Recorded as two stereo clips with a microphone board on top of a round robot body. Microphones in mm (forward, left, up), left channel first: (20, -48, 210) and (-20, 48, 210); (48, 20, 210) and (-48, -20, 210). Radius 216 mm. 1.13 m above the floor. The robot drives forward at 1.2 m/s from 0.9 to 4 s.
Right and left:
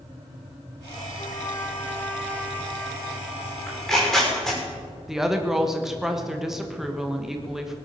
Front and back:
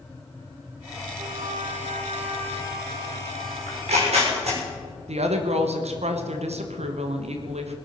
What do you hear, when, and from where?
1.2 s a trumpet: 110° right, 0.9 m; by 4.1 s 165° right, 4 m
3.7 s tearing paper: 150° right, 6 m
5.1 s a woman speaking: 160° right, 1.6 m